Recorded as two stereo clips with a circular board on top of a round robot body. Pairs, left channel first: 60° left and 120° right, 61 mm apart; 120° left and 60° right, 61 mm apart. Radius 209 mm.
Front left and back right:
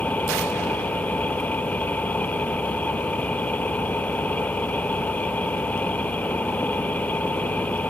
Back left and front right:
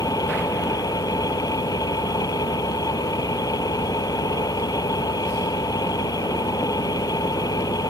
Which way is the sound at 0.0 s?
125° left.